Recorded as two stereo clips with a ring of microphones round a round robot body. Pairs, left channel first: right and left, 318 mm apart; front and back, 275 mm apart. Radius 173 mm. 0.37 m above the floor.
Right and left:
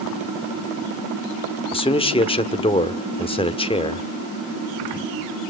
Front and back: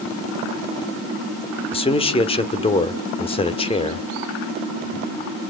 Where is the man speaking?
40° right, 1.2 m.